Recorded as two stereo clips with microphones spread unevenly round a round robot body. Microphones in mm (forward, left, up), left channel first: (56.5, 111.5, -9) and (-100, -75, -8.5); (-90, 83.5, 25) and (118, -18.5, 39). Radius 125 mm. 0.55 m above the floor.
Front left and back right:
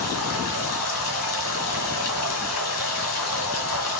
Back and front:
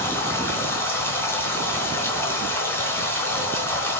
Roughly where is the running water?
Left.